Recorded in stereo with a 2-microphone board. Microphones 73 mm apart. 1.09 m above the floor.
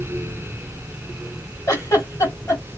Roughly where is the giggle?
Left.